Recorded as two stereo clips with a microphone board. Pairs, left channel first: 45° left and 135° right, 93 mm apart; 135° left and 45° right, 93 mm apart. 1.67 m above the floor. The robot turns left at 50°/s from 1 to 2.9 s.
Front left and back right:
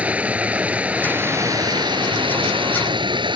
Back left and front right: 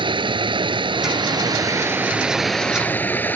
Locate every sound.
0.0 s running water: 60° right; by 3.4 s 155° right